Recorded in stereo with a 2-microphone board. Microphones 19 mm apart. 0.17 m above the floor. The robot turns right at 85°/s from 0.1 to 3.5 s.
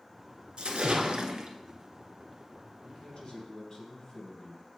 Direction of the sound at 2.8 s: 100° left.